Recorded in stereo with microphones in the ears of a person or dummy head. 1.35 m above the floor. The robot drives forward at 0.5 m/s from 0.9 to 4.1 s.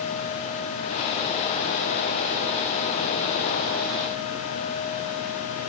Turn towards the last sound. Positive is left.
No sound to turn to.